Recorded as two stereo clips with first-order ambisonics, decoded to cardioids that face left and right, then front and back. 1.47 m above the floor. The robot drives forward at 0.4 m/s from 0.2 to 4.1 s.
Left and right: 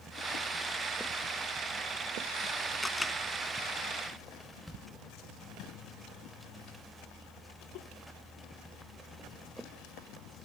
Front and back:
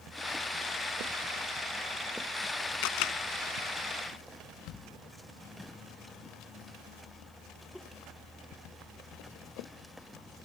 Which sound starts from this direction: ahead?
A camera shutter, at 2.8 s.